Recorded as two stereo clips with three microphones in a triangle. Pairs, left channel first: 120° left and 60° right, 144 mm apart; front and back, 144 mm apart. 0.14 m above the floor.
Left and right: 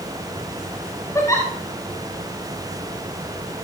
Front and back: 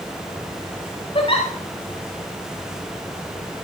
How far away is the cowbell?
No cowbell in this recording.